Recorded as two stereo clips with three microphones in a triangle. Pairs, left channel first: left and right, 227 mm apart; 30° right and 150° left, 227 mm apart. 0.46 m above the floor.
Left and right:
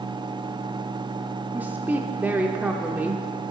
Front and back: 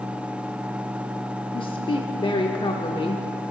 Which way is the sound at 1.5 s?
20° right.